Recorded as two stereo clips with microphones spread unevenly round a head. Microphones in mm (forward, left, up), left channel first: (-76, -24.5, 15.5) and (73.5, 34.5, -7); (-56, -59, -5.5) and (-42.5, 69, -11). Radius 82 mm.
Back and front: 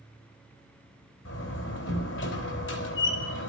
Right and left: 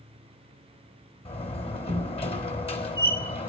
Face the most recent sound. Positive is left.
turn(degrees=-140)